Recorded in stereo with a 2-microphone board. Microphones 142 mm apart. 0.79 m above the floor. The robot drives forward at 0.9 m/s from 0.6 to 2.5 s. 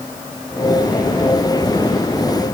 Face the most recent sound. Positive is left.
No sound to turn to.